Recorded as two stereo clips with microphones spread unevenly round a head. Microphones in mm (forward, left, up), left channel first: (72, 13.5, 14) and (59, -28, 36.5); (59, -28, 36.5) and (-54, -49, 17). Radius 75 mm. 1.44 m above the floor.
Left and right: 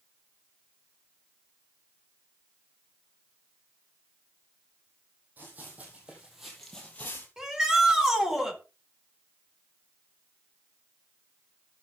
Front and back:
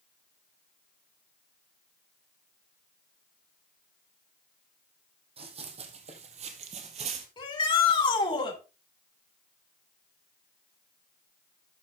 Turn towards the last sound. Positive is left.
turn(degrees=-35)